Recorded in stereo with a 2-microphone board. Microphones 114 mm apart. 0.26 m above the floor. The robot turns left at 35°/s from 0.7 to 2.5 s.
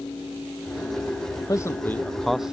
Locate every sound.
1.5 s a man speaking: 30° left (ahead or behind); by 2.5 s 5° right (ahead or behind)